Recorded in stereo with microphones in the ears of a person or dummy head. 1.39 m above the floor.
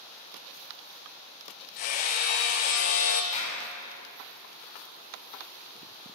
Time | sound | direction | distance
1.8 | hammering | 40° left (ahead or behind) | 0.8 m
3.3 | a clap | 35° left (ahead or behind) | 4 m